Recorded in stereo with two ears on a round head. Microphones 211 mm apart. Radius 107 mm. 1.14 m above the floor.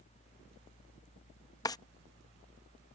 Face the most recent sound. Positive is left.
turn(degrees=15)  # may be behind; listen again after turning